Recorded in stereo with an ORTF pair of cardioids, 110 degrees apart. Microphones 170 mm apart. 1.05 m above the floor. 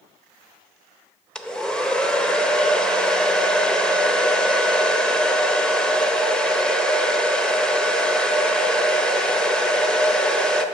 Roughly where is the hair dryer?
Ahead.